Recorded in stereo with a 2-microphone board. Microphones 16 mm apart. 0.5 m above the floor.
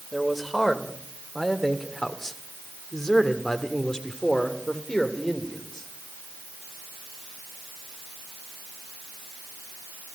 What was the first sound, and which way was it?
A man speaking, 10° left (ahead or behind).